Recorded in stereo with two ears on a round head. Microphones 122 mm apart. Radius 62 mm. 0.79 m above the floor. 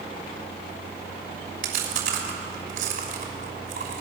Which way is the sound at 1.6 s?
60° right (ahead or behind).